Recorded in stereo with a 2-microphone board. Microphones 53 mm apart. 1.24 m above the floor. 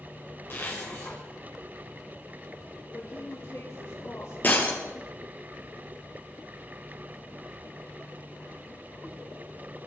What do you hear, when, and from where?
0.5 s a zipper: 45° left (ahead or behind), 4.5 m
2.9 s a woman speaking: 85° left, 3.5 m
4.4 s breaking glass: 35° left (ahead or behind), 2.5 m